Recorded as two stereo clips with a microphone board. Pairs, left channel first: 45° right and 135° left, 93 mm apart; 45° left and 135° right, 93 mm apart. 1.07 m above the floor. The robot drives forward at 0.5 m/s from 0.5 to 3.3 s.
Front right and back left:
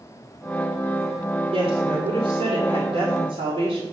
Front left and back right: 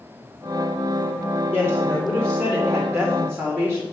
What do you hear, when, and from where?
1.5 s a woman speaking: 125° left, 2.5 m; by 3.8 s 140° left, 3.5 m